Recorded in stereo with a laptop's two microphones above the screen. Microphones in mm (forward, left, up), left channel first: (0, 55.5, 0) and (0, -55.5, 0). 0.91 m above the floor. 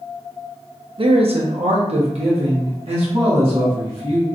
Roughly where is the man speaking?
Right.